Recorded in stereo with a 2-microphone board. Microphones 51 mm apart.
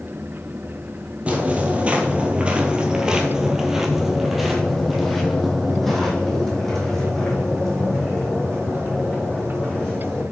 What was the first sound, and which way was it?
Footsteps, 30° right (ahead or behind).